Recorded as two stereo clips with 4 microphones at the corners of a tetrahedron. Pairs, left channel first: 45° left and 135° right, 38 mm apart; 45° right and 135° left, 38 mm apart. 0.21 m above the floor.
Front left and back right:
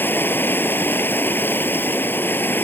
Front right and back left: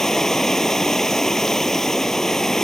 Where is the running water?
30° left.